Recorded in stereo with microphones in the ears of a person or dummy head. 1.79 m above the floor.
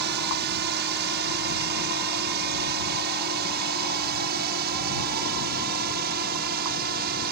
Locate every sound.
0.0 s a drone: 65° right (ahead or behind); by 7.3 s 60° right (ahead or behind)